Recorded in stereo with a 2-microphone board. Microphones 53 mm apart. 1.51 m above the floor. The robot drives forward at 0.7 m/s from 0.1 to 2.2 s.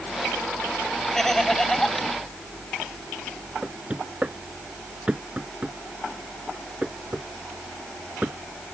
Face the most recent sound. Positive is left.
turn(degrees=-25)  # may be behind; listen again after turning